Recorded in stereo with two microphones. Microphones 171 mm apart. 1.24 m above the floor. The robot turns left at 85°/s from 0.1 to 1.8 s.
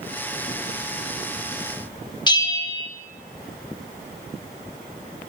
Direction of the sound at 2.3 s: 25° left (ahead or behind).